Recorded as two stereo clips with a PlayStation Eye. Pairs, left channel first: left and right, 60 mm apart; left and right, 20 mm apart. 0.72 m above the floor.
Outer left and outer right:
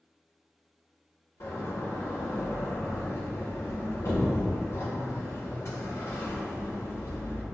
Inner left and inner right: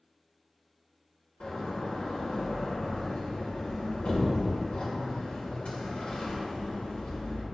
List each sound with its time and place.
1.4 s a door slam: 55° left (ahead or behind), 1.6 m